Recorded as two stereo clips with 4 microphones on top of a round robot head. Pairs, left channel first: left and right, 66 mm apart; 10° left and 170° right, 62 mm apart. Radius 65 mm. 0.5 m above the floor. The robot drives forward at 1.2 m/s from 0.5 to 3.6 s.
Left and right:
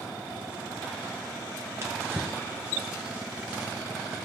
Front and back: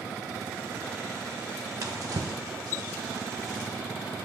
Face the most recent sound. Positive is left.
turn(degrees=-165)